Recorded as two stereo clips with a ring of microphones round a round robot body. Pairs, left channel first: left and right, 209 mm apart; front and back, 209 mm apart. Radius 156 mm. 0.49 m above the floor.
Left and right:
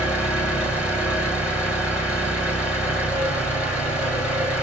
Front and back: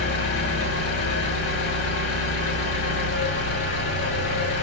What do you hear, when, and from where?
0.0 s an engine running: 5° right, 1.6 m